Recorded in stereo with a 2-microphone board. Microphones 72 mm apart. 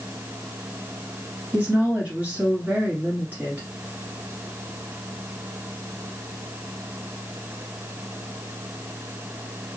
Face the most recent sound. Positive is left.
turn(degrees=-20)  # may be behind; listen again after turning